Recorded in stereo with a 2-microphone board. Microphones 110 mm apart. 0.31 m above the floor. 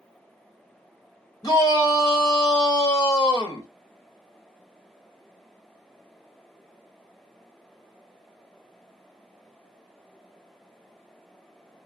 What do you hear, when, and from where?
1.4 s a shout: 35° left (ahead or behind), 1.6 m